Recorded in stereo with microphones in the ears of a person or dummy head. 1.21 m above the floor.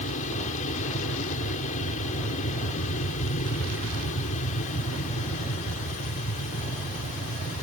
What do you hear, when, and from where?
0.0 s an aircraft: 40° left (ahead or behind)